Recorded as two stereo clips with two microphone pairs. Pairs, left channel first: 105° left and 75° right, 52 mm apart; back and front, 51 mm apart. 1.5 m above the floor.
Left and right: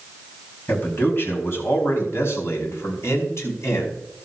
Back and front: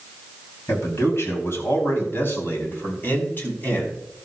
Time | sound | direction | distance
0.7 | a man speaking | 150° left | 4 m